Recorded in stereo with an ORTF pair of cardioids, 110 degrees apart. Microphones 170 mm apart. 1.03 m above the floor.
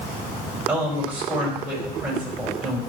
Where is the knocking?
No knocking in this recording.